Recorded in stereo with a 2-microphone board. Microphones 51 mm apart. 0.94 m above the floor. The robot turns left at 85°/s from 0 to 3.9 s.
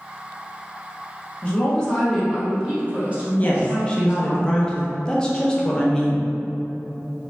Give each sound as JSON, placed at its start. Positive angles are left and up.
{"t": 1.4, "sound": "a woman speaking", "side_deg": 25, "distance_m": 0.7}
{"t": 3.4, "sound": "a woman speaking", "azimuth_deg": 70, "distance_m": 0.5}